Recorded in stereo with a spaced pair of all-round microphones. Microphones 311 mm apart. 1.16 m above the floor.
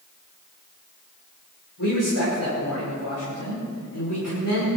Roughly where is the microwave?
I don't hear a microwave.